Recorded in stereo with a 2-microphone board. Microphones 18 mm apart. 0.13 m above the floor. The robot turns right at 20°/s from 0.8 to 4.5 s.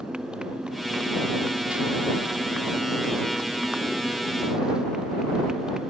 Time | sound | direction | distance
0.0 | a motorcycle | 120° right | ?